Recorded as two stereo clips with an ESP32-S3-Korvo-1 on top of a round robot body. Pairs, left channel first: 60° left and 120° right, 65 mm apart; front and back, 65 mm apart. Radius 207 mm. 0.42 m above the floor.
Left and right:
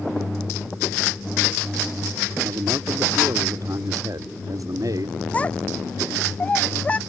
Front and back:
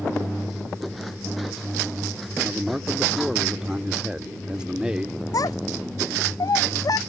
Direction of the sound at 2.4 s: 105° right.